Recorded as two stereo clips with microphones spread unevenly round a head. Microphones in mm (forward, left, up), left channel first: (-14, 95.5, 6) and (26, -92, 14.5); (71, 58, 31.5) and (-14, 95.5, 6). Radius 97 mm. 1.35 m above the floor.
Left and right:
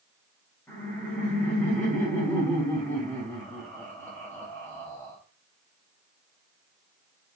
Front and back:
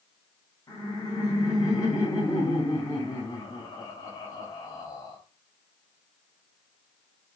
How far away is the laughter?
About 3.5 m.